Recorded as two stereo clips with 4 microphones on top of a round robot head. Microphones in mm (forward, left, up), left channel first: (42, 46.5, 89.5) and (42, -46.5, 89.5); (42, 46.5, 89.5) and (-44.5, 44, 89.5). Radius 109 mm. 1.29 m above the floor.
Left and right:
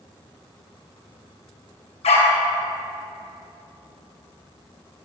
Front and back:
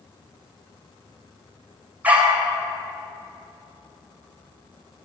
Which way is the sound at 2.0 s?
110° left.